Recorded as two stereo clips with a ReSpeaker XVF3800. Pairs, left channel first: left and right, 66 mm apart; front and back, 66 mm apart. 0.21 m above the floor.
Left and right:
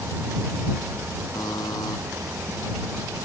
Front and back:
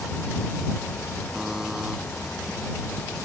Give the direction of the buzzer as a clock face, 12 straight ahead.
9 o'clock.